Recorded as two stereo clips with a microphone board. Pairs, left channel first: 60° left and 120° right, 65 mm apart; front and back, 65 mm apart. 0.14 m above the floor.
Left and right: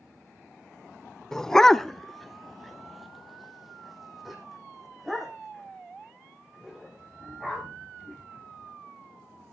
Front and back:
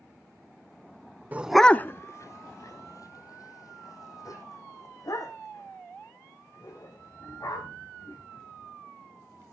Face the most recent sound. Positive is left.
turn(degrees=-30)